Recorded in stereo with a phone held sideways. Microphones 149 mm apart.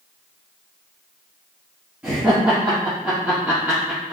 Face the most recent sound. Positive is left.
turn(degrees=-10)  # may be behind; listen again after turning